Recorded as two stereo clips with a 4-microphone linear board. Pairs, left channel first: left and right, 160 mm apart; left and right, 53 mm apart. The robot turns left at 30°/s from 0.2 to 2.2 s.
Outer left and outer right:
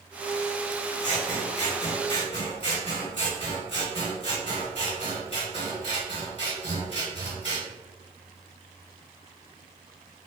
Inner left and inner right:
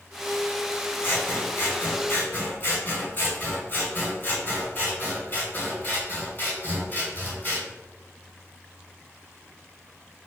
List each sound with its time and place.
1.0 s scissors: 95° left, 2 m; by 7.6 s 60° left, 2 m